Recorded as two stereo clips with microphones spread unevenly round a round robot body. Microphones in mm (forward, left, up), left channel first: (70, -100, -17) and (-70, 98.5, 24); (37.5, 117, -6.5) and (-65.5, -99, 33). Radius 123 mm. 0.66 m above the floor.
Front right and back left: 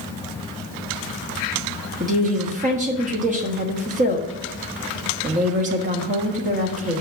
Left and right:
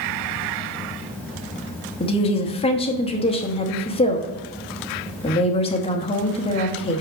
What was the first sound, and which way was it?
A woman speaking, 75° left.